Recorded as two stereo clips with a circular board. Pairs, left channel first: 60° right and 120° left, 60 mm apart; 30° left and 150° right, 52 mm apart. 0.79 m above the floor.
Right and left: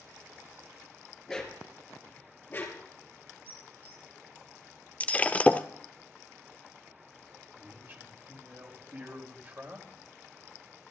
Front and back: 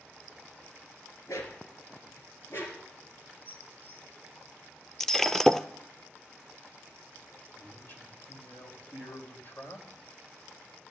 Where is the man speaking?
70° left, 3.5 m.